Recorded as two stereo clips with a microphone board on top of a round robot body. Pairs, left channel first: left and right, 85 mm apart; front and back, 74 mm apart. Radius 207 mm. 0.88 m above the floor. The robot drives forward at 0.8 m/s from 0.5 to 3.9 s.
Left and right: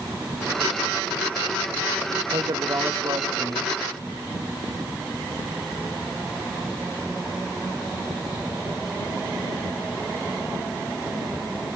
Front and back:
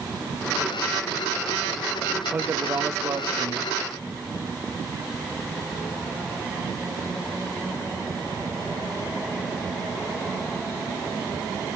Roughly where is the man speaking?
Behind right.